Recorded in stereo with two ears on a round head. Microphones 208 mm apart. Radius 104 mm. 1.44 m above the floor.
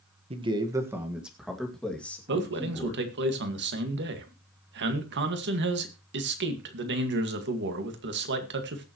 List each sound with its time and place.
0.3 s a man speaking: 25° right (ahead or behind), 1.4 m; by 3.0 s 10° left (ahead or behind), 3.5 m
2.3 s a man speaking: 50° right (ahead or behind), 2.0 m